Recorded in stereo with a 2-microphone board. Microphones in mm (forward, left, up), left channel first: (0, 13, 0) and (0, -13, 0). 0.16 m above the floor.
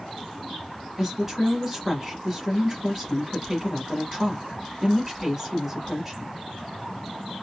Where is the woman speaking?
15° right (ahead or behind), 1.7 m.